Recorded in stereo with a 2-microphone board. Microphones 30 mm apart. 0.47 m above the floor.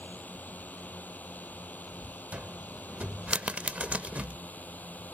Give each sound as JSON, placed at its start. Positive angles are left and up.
{"t": 0.0, "sound": "a drone", "side_deg": 75}
{"t": 2.3, "sound": "a cupboard door", "side_deg": -50}